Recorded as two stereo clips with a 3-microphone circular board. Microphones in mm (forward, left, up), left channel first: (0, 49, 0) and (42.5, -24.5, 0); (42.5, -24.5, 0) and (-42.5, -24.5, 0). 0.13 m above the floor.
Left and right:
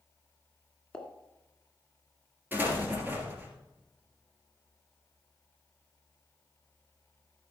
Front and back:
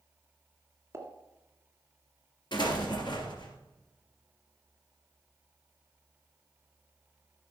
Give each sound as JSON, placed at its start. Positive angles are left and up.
{"t": 0.9, "sound": "a pop", "azimuth_deg": -170, "distance_m": 1.6}
{"t": 2.5, "sound": "an explosion", "azimuth_deg": 5, "distance_m": 2.5}